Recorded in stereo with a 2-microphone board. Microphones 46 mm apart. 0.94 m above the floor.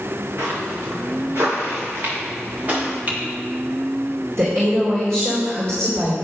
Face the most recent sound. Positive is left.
turn(degrees=-80)